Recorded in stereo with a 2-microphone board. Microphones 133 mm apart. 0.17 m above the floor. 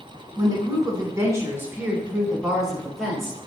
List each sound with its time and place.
0.4 s a woman speaking: 30° right (ahead or behind), 1.2 m; by 3.4 s 5° left (ahead or behind), 1.5 m